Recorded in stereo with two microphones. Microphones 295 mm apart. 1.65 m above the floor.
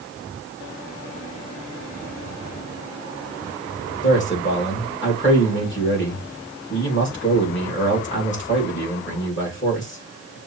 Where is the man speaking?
40° left (ahead or behind), 2 m.